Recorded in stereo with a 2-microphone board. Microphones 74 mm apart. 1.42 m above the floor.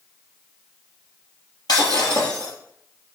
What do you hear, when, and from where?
1.7 s breaking glass: 70° left (ahead or behind), 4 m